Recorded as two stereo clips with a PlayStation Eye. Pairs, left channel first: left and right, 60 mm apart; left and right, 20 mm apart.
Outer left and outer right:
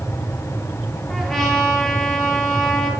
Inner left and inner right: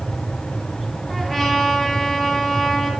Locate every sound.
1.1 s a trumpet: 5° left (ahead or behind), 4 m